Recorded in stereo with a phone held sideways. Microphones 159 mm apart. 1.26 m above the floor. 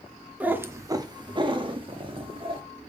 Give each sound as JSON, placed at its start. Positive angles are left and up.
{"t": 0.4, "sound": "a cat meowing", "side_deg": -10, "distance_m": 0.7}